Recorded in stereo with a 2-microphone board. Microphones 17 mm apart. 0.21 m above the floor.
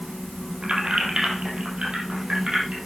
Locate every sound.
0.6 s keys jangling: 75° right (ahead or behind), 4 m; by 2.8 s 80° right, 5.5 m